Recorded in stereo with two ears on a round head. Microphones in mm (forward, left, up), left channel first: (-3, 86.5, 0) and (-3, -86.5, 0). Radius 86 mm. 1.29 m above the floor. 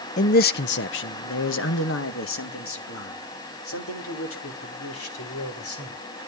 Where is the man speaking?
40° left (ahead or behind), 0.5 m; by 6.0 s 85° left, 4.5 m.